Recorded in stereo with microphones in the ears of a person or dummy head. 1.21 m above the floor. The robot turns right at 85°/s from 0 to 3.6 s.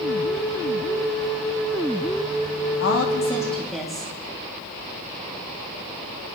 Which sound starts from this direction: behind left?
A woman speaking, at 2.8 s.